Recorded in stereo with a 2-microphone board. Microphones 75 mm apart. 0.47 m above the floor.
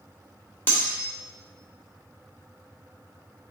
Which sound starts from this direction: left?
Cutlery clinking, at 0.7 s.